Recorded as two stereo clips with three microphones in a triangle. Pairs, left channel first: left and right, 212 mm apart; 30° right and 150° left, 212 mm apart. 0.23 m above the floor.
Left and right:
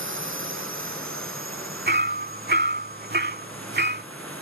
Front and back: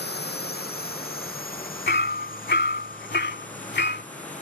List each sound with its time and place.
0.0 s a drone: 70° right; by 4.4 s 85° right
1.9 s hammering: 60° right